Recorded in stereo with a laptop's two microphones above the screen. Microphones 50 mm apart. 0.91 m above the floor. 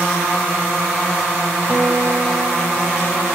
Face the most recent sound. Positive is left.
turn(degrees=-45)  # may be behind; listen again after turning